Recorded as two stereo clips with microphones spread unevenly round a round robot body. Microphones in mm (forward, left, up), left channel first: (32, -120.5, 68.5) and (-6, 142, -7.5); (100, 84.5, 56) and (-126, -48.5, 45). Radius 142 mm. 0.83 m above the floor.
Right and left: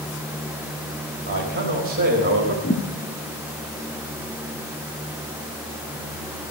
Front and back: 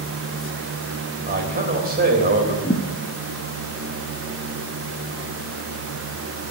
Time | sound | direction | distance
1.3 | a man speaking | 155° left | 3.5 m
2.6 | a thud | 35° right | 1.1 m